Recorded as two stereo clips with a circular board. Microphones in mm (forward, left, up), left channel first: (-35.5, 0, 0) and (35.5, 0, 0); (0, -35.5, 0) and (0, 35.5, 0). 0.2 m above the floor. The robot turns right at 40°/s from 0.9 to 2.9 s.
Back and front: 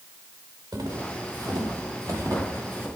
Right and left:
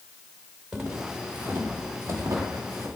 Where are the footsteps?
10° left, 5.5 m; by 2.9 s 65° left, 7 m.